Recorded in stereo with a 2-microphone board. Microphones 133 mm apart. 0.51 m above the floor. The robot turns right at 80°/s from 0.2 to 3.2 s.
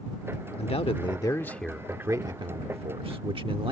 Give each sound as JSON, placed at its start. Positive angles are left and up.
{"t": 0.6, "sound": "a man speaking", "azimuth_deg": 90}